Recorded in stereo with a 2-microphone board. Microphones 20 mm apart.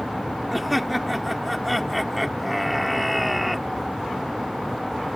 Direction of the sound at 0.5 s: 5° right (ahead or behind).